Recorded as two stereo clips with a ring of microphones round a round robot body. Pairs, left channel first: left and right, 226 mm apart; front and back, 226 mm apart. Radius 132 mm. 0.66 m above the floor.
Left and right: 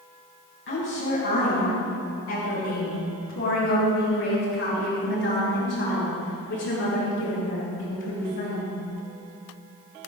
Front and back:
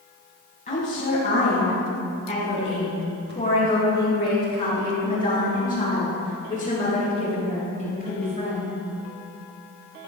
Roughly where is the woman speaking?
Ahead left.